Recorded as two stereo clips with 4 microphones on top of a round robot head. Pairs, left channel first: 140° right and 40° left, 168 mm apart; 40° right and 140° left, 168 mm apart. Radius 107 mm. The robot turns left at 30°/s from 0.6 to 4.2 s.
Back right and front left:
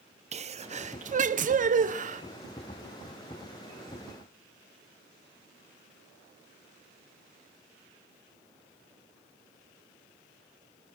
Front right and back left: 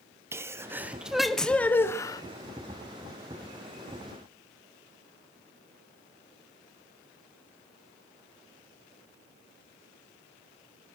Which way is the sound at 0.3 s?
70° left.